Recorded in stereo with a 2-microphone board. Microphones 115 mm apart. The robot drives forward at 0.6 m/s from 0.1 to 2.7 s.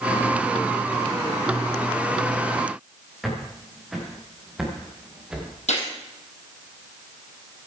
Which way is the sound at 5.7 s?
75° left (ahead or behind).